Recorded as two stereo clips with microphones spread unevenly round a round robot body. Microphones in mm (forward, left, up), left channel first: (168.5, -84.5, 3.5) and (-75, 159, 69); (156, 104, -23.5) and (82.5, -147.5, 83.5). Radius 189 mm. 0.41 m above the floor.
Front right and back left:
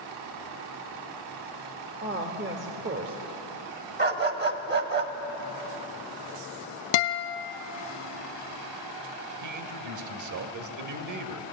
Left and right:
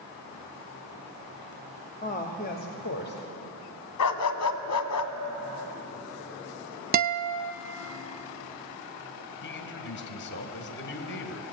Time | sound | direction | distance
2.0 | a woman speaking | 70° left | 1.7 m
4.0 | a dog barking | 70° left | 1.5 m
6.9 | a guitar | 50° right | 0.9 m
9.4 | a man speaking | 95° left | 2 m